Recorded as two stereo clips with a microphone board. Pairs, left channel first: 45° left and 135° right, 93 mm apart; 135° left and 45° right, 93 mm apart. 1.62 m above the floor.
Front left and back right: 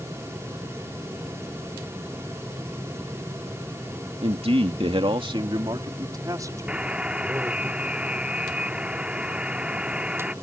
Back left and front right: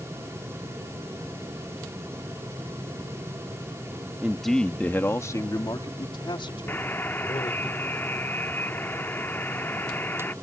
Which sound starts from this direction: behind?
A buzzer, at 6.7 s.